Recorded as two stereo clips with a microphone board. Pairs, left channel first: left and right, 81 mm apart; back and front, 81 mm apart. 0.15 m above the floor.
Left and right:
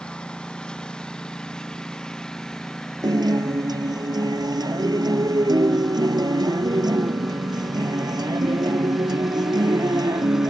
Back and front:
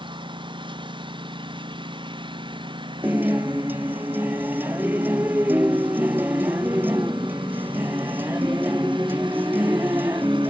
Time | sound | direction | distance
0.0 | a lawn mower | 10° left | ?
3.0 | a guitar | 65° right | ?